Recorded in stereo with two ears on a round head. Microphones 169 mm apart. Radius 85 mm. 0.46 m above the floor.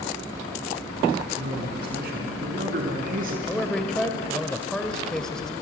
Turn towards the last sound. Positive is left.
turn(degrees=5)  # may be behind; listen again after turning